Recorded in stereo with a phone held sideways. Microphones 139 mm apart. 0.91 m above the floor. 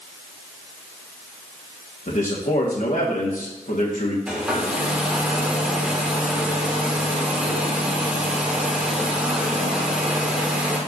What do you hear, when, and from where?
2.1 s a man speaking: 65° left (ahead or behind), 1.5 m
4.3 s a hair dryer: 10° right (ahead or behind), 1.5 m